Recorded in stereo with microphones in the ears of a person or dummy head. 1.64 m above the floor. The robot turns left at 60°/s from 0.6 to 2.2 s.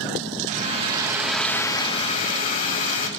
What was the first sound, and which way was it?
A hair dryer, 140° right.